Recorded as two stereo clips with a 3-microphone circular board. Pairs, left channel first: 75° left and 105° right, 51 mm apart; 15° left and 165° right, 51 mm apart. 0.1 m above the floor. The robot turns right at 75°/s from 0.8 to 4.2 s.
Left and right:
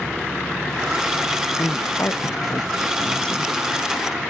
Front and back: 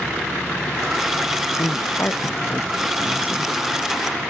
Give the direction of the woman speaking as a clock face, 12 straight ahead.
12 o'clock.